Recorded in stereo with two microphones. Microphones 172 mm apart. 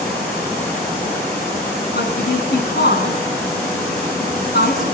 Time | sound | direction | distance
1.9 | a woman speaking | 70° left (ahead or behind) | 3 m